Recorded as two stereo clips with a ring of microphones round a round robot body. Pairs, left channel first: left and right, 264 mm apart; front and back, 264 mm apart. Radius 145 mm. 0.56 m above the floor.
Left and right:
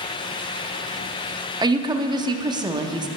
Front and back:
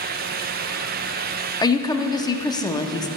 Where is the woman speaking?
45° right, 0.7 m.